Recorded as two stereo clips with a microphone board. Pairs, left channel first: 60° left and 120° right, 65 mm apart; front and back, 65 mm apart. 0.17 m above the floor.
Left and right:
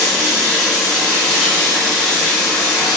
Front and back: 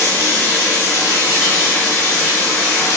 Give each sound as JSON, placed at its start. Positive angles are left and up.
{"t": 0.0, "sound": "running water", "azimuth_deg": -30, "distance_m": 1.6}